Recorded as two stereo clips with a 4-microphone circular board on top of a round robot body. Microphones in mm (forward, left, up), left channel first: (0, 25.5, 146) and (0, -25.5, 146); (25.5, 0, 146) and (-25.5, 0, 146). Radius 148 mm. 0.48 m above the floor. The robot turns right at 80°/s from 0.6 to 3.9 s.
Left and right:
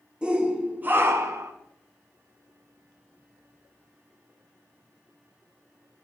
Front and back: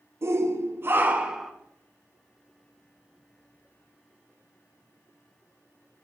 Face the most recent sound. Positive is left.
turn(degrees=105)